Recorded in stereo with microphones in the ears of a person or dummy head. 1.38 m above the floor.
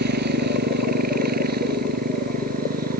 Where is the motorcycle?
55° right (ahead or behind); by 3.0 s 50° right (ahead or behind).